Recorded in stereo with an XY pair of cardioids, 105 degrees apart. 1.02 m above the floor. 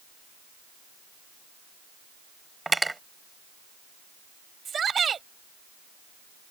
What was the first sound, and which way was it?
Cutlery clinking, 15° right.